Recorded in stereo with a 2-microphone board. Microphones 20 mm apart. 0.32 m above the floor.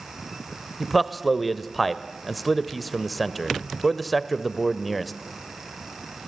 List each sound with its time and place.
0.8 s a man speaking: 5° left (ahead or behind), 1.0 m